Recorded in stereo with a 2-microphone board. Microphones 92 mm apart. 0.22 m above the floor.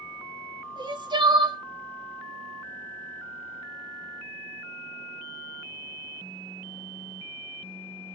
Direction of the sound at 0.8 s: 55° right (ahead or behind).